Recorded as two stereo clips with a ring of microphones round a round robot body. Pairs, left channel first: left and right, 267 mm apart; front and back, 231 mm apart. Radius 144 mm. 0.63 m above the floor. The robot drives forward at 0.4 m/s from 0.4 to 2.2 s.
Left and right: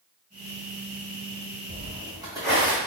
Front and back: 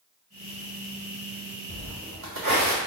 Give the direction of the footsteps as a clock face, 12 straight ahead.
5 o'clock.